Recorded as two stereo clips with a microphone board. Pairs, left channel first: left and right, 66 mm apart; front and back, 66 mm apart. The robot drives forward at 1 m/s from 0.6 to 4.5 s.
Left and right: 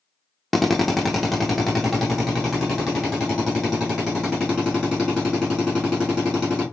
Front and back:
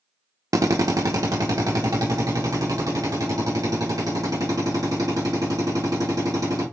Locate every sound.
0.5 s a drill: straight behind, 0.8 m